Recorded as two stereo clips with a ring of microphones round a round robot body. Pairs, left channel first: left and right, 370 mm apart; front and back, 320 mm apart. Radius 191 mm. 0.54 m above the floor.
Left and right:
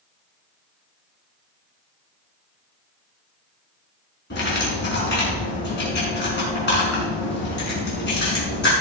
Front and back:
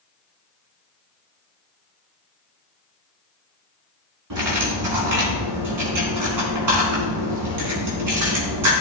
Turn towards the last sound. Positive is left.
turn(degrees=155)